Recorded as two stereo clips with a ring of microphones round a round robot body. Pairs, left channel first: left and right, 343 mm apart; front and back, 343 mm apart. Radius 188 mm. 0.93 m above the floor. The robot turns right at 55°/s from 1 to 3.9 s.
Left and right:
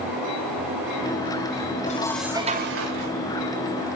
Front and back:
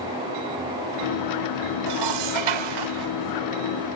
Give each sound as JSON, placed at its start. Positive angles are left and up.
{"t": 1.9, "sound": "dishes clattering", "azimuth_deg": 160, "distance_m": 2.0}